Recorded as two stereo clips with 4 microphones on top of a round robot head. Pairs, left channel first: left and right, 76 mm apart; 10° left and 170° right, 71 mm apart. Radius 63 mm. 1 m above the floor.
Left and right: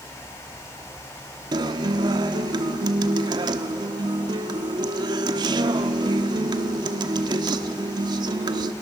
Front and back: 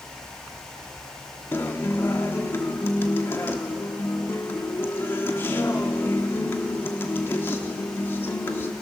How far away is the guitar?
About 1.0 m.